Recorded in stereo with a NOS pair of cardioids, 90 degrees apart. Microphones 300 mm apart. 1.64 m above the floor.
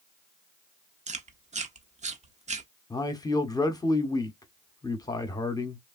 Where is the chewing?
25° right, 0.7 m.